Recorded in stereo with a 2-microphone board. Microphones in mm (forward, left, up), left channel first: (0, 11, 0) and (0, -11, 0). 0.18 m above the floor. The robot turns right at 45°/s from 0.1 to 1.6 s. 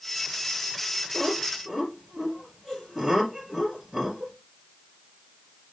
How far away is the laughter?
About 4.5 m.